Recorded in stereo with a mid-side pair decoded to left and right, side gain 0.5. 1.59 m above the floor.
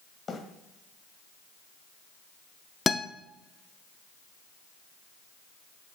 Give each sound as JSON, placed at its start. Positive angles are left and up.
{"t": 0.3, "sound": "a bird", "azimuth_deg": 35, "distance_m": 2.0}
{"t": 2.9, "sound": "a guitar", "azimuth_deg": 25, "distance_m": 0.6}